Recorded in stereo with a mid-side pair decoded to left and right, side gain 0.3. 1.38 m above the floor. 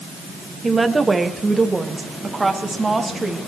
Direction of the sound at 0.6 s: 35° right.